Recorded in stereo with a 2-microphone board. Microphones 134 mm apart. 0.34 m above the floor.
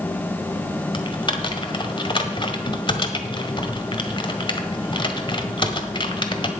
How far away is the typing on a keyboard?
About 1.5 m.